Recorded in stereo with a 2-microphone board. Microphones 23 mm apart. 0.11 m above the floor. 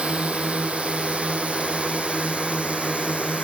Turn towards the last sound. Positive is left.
turn(degrees=-75)  # may be behind; listen again after turning